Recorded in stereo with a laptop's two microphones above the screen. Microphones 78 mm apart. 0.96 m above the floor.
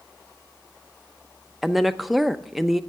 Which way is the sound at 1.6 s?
Centre (ahead or behind).